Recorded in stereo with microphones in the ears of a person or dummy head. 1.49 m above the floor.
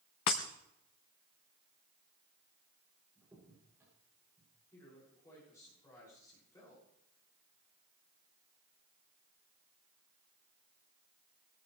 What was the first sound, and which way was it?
Breaking glass, 20° left (ahead or behind).